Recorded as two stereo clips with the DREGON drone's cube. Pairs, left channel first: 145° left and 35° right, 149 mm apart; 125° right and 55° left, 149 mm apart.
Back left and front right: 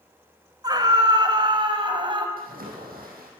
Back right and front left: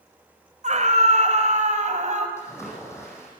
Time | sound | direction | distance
0.6 | a scream | 25° left | 2.5 m
2.4 | a splash | 50° right | 7 m